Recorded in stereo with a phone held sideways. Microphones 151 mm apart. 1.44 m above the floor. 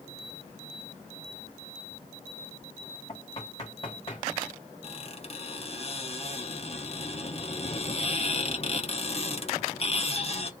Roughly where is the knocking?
Left.